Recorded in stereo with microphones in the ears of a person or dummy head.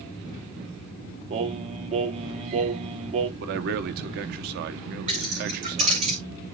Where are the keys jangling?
30° right (ahead or behind), 2.5 m.